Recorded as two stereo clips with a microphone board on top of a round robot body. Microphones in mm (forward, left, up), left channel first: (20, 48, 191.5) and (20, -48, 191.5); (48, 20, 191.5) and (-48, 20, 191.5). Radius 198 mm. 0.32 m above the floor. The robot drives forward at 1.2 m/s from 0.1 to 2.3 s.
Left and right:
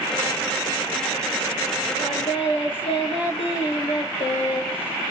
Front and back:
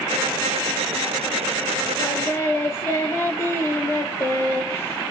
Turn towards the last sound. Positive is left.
turn(degrees=65)